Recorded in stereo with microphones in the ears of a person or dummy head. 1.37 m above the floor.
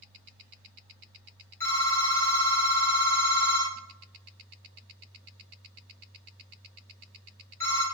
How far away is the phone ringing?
About 1.7 m.